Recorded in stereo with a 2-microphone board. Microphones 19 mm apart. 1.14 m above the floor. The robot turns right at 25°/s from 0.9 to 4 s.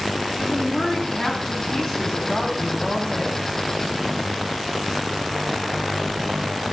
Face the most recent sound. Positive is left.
turn(degrees=150)